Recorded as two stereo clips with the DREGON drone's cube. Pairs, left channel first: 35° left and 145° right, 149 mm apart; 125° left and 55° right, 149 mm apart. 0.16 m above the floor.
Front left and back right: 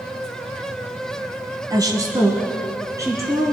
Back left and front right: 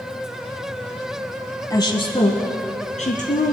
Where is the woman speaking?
170° left, 1.1 m; by 3.5 s 145° left, 2.5 m.